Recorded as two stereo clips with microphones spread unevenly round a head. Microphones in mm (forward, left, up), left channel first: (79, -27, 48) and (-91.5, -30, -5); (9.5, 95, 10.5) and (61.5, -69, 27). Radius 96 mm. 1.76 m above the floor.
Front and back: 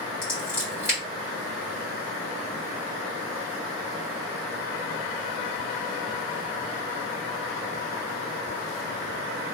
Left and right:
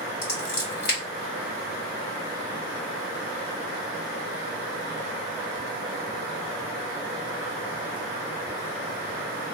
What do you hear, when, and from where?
0.2 s scissors: 90° left, 2 m